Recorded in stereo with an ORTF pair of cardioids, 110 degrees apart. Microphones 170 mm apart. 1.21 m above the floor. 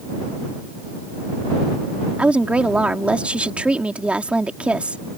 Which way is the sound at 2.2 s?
5° right.